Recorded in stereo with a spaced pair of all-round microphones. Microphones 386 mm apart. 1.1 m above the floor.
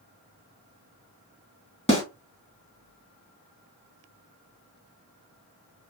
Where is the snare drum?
15° left (ahead or behind), 1.8 m.